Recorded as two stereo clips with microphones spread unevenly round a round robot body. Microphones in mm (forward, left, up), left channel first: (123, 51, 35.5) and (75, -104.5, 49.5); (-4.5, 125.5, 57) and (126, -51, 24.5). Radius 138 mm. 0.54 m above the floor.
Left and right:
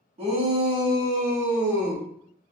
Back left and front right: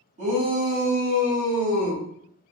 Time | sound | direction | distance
0.2 | a shout | 70° right | 1.5 m